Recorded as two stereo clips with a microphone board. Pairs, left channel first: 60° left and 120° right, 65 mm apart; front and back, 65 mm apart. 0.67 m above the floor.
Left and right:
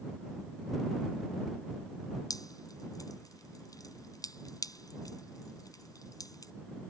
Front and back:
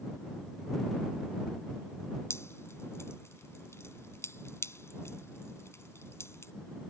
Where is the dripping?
45° left.